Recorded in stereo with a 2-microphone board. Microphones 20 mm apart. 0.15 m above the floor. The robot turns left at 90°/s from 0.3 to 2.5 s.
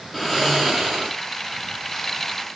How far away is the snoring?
About 5.5 m.